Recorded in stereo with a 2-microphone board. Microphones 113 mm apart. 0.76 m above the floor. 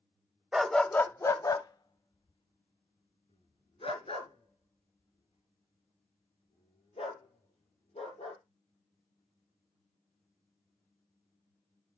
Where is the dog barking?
5° right (ahead or behind), 0.9 m; by 8.4 s 80° left, 7 m.